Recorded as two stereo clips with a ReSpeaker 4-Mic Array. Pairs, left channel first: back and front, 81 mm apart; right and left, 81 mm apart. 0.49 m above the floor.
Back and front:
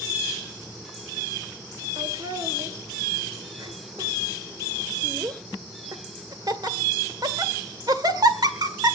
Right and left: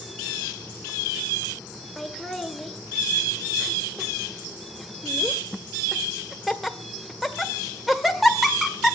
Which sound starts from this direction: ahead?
Laughter, at 2.0 s.